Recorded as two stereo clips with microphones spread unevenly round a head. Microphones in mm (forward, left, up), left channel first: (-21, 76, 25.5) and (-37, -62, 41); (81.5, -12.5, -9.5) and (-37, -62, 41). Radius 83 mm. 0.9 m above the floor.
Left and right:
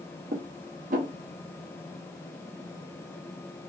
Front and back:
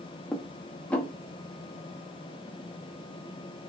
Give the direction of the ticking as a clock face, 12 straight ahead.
I don't hear ticking.